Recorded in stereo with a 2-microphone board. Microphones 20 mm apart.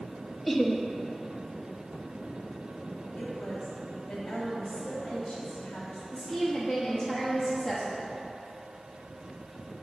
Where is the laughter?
10° left (ahead or behind), 0.9 m.